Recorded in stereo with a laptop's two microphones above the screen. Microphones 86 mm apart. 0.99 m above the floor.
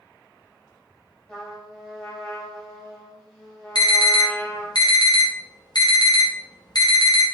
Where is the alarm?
55° left (ahead or behind), 0.7 m.